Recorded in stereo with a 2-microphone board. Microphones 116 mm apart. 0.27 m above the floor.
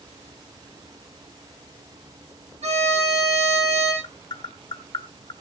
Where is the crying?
I don't hear crying.